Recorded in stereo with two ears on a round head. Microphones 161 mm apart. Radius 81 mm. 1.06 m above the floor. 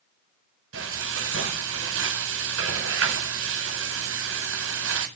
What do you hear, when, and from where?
0.7 s frying: 85° right, 8 m